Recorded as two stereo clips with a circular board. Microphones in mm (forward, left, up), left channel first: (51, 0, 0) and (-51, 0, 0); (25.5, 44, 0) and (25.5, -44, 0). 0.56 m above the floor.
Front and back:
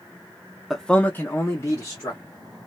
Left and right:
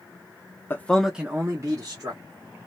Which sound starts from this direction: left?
A man speaking, at 0.7 s.